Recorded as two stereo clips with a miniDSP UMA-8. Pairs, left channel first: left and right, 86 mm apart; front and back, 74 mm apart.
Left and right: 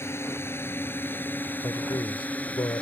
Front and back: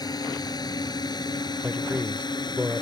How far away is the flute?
No flute in this recording.